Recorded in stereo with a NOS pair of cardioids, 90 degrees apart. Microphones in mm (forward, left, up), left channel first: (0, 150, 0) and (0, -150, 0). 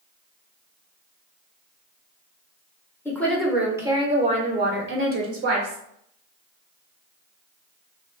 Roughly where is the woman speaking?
Ahead.